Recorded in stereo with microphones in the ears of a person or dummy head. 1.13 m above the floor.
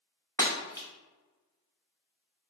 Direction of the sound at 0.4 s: 20° left (ahead or behind).